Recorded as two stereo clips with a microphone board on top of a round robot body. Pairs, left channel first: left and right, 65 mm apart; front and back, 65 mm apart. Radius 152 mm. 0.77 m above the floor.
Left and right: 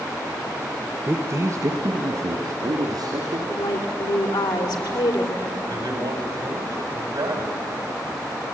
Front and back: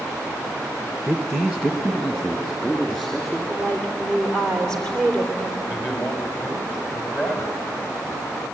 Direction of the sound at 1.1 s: 85° right.